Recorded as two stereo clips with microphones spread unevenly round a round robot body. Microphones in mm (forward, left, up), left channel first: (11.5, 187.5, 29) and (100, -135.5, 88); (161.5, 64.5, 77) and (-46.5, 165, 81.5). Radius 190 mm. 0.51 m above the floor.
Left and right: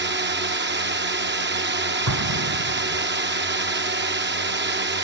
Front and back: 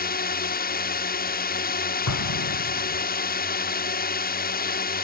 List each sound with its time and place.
0.0 s a drone: 20° right
2.1 s an explosion: 35° right